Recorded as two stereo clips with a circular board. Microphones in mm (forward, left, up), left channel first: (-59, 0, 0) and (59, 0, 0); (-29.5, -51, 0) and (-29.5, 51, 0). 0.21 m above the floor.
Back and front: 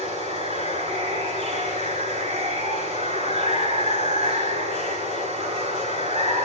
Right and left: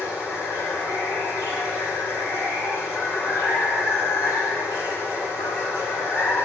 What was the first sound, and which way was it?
Running water, 20° left.